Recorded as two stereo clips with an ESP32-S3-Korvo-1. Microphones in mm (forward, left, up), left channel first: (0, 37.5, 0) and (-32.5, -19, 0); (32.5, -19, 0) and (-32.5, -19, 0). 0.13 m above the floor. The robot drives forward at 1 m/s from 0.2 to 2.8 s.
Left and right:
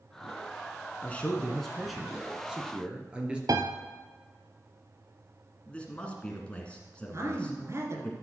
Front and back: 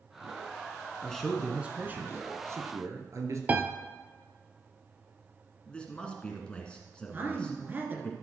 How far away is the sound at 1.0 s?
About 1.2 m.